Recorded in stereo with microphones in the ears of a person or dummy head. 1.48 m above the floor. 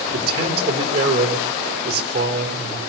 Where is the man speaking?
60° right (ahead or behind), 4 m.